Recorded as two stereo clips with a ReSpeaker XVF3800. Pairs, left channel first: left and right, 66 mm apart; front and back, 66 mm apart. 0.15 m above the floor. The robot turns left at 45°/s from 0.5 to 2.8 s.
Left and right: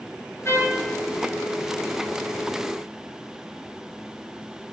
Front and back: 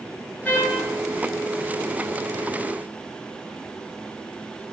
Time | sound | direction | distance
0.5 | a trumpet | 60° left | 1.1 m